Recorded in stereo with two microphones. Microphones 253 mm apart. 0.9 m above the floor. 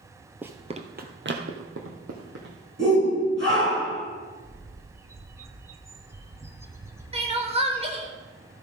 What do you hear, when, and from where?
0.4 s running footsteps: 5° right (ahead or behind), 0.9 m; by 2.5 s 70° right (ahead or behind), 2.5 m
2.8 s a shout: 50° right (ahead or behind), 5 m
4.4 s a bird: 10° right (ahead or behind), 0.9 m
7.1 s crying: 25° right (ahead or behind), 1.4 m